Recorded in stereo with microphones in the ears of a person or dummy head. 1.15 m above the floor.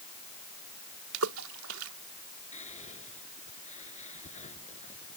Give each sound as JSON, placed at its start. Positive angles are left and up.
{"t": 1.1, "sound": "a splash", "side_deg": -80}
{"t": 2.5, "sound": "whispering", "side_deg": 40}